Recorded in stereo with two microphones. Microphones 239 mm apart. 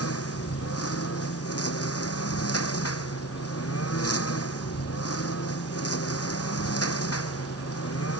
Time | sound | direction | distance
0.0 | a lawn mower | 80° left | ?